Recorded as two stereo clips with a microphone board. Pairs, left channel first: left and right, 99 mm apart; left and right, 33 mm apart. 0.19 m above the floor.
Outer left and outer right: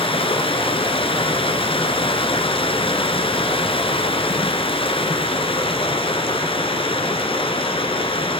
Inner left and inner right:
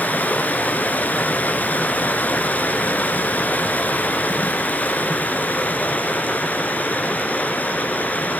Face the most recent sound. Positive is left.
turn(degrees=65)  # may be behind; listen again after turning